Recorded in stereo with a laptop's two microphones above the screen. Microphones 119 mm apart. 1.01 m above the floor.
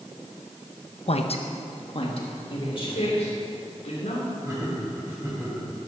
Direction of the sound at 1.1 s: 60° left (ahead or behind).